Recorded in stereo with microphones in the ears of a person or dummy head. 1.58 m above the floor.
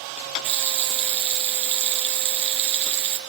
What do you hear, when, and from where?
0.4 s a running tap: 35° right (ahead or behind), 0.6 m